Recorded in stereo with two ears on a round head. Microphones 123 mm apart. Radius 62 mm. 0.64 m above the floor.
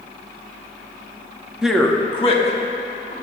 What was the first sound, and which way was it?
A man speaking, 5° right (ahead or behind).